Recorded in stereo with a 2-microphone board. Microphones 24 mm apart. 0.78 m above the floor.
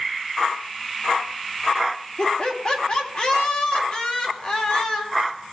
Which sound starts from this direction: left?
Laughter, at 2.2 s.